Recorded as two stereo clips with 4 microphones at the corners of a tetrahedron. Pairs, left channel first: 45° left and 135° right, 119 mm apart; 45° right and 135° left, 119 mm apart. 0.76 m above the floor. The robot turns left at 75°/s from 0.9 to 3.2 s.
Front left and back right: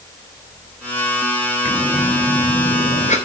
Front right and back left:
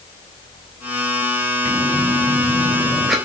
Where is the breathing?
155° left, 3.5 m; by 3.1 s 45° left, 3.5 m.